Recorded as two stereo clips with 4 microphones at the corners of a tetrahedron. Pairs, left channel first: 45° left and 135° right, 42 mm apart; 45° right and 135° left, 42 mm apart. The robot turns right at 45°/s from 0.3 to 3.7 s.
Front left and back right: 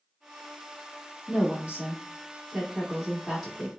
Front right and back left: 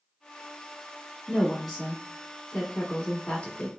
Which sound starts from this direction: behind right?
A woman speaking, at 1.3 s.